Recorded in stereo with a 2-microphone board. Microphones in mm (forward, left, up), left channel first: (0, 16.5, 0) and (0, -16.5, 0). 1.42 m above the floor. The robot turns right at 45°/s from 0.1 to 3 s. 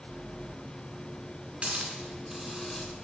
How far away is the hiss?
About 2.5 m.